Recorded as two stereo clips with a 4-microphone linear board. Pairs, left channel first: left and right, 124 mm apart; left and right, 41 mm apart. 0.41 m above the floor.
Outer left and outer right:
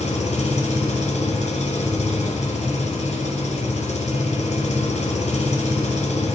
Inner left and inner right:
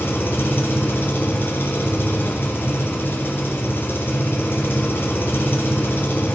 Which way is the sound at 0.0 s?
70° left (ahead or behind).